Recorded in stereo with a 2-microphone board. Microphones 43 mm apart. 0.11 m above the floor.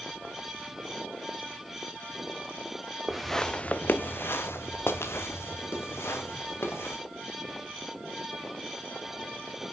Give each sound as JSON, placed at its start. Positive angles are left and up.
{"t": 3.1, "sound": "footsteps", "side_deg": -10, "distance_m": 0.9}